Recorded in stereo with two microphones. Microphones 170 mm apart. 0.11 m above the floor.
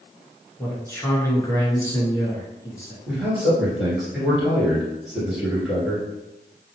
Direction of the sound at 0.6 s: 15° left (ahead or behind).